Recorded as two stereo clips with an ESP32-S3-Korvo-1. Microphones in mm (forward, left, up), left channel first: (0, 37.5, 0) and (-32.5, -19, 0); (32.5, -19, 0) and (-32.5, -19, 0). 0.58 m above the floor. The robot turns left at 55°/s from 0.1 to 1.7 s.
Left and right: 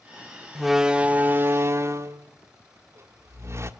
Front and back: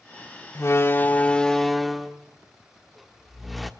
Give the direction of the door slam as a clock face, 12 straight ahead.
1 o'clock.